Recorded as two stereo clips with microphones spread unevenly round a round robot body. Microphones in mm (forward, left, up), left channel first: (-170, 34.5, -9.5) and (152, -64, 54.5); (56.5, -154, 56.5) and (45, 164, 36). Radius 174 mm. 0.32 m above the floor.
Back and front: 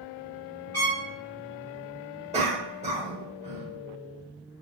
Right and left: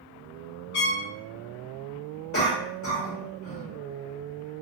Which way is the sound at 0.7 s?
110° right.